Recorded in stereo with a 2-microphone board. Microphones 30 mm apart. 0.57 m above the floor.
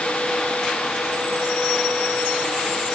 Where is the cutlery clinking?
No cutlery clinking in this recording.